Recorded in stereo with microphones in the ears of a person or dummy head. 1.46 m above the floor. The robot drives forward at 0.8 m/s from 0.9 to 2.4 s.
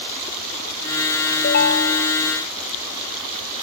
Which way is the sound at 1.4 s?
55° left (ahead or behind).